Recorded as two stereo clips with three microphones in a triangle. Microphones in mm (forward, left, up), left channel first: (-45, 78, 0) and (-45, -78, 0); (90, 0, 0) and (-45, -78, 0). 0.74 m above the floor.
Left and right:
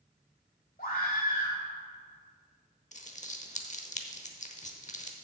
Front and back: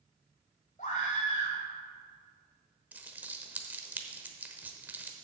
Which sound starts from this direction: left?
A scream, at 0.8 s.